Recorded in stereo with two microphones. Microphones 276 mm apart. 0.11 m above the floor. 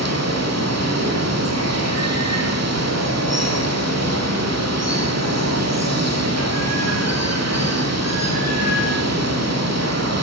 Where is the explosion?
No explosion in this recording.